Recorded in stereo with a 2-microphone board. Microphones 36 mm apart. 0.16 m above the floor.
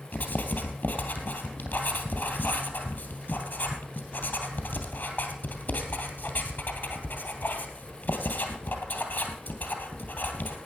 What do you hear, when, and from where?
0.1 s writing: 60° left (ahead or behind), 2.5 m